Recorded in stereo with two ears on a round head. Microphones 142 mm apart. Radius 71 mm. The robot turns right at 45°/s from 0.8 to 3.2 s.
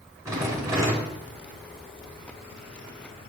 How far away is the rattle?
About 1.7 m.